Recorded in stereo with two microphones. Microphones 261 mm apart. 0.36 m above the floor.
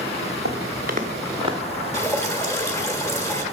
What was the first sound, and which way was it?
Footsteps, 60° right (ahead or behind).